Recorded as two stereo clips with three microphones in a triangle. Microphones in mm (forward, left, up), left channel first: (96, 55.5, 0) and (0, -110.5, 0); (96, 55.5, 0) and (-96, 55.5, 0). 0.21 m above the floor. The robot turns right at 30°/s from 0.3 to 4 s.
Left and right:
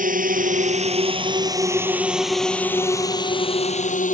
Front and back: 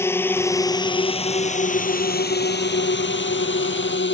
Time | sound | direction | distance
0.0 | a drone | 75° right | ?